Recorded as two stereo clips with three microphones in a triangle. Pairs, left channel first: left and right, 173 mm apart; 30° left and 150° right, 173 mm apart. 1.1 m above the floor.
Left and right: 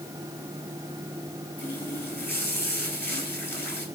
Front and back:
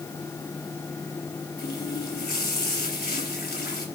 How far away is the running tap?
About 3.5 m.